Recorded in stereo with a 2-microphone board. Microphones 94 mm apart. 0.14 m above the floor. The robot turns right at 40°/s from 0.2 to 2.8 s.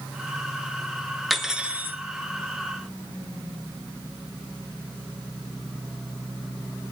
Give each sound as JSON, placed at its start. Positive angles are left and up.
{"t": 1.3, "sound": "cutlery clinking", "side_deg": 0, "distance_m": 1.2}